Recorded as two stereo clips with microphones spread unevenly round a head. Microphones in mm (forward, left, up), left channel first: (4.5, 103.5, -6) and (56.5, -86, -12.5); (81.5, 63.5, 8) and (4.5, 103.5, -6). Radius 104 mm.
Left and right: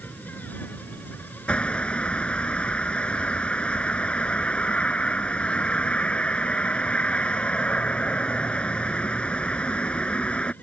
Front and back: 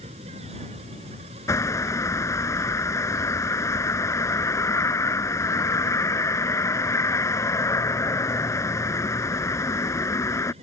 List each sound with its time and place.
0.0 s an insect: 170° right
1.5 s a bird: 20° left